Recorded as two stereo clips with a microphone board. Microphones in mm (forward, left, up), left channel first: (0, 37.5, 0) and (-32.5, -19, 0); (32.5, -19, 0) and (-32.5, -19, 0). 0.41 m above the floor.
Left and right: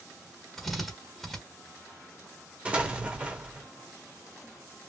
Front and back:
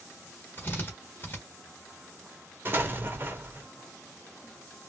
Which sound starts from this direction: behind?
An explosion, at 2.6 s.